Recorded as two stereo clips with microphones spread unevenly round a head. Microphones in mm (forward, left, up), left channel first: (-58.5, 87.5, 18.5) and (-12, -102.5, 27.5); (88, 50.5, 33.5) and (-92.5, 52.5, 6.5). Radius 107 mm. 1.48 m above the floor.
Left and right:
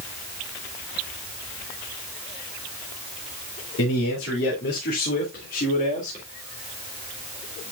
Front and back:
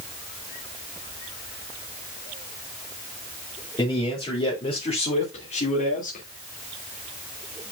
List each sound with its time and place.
3.8 s a man speaking: 65° left, 3.5 m; by 6.2 s 40° left, 2.5 m